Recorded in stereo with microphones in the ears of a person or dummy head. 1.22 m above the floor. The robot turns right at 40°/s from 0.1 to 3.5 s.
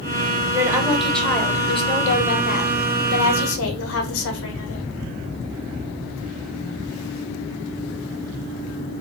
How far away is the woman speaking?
About 0.7 m.